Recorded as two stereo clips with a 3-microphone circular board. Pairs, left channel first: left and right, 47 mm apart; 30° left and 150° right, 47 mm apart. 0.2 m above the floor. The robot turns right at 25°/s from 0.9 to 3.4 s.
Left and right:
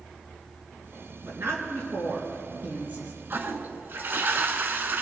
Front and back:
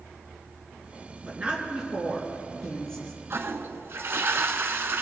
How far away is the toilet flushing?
About 0.7 m.